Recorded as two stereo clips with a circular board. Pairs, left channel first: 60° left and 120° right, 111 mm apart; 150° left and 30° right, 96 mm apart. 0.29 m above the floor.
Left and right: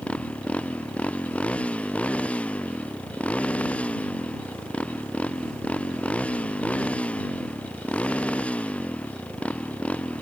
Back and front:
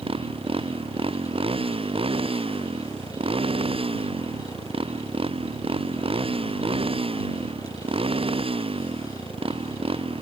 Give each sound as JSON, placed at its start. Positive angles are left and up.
{"t": 0.0, "sound": "a motorcycle", "azimuth_deg": -20}